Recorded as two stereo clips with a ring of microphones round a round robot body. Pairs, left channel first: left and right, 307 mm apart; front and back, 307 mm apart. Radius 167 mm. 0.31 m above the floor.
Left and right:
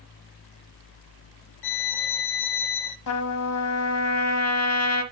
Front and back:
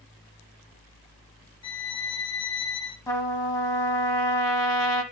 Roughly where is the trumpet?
Left.